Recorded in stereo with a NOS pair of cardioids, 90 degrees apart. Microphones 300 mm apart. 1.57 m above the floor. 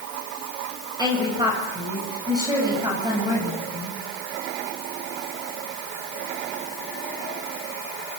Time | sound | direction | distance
1.0 | a woman speaking | 15° right | 7 m